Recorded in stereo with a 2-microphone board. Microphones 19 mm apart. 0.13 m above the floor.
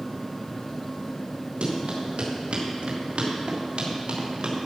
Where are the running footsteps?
80° right, 3.5 m; by 4.6 s 70° right (ahead or behind), 3.5 m.